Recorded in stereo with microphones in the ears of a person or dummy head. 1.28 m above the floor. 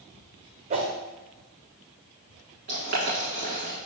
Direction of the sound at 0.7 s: 40° right (ahead or behind).